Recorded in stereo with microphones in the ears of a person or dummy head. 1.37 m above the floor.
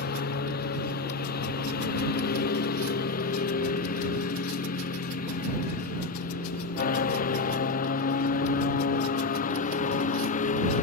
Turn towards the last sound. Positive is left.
turn(degrees=35)  # may be behind; listen again after turning